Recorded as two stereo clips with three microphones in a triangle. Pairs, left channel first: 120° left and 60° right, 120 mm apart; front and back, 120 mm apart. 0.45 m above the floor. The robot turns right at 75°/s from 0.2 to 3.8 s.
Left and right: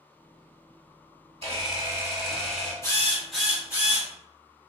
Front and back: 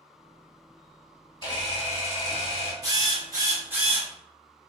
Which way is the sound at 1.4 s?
40° right.